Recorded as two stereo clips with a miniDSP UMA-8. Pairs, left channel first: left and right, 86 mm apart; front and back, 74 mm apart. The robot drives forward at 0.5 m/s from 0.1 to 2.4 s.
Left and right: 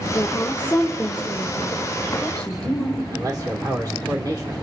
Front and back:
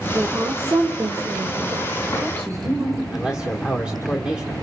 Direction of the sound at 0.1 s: 145° left.